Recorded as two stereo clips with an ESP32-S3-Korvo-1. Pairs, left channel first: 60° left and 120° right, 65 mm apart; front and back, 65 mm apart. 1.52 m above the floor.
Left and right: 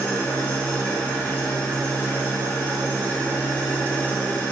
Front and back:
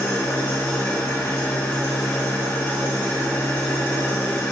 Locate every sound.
0.0 s an engine running: 10° left, 0.8 m